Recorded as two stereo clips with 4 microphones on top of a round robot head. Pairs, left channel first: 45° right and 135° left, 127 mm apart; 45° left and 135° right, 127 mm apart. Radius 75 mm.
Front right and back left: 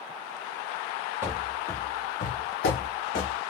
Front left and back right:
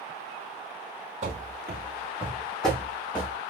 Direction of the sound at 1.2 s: 160° right.